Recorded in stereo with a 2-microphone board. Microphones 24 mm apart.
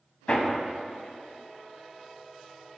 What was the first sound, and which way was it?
Hammering, 50° left (ahead or behind).